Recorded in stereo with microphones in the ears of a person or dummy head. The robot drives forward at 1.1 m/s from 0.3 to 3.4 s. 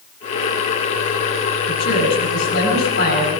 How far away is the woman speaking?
About 9 m.